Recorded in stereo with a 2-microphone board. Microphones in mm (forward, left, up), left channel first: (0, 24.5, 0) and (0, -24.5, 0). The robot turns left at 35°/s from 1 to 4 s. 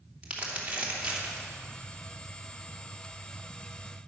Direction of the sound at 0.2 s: 25° right (ahead or behind).